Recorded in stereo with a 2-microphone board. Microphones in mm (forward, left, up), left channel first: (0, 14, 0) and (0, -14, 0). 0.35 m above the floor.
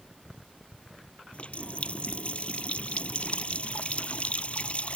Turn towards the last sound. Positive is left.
turn(degrees=45)  # may be behind; listen again after turning